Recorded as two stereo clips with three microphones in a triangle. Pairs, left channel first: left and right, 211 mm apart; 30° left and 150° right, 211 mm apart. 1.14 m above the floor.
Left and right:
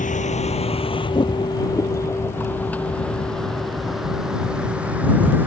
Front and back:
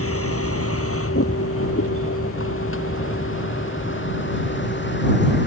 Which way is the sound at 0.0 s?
35° left.